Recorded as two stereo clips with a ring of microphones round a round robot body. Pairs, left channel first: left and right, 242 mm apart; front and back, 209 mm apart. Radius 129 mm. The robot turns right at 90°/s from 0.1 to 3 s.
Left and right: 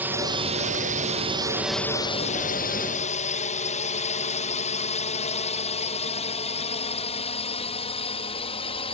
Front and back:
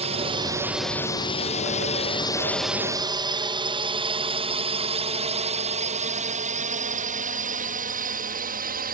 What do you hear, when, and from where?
0.0 s a drone: 165° right; by 8.9 s 150° left